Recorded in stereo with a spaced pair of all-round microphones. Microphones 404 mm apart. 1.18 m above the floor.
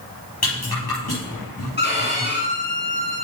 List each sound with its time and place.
0.4 s a rattle: 65° left (ahead or behind), 5.5 m
1.8 s a violin: 25° left (ahead or behind), 2.5 m